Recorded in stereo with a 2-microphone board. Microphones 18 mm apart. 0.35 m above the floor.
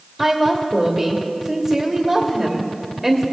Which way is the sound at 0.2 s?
10° right (ahead or behind).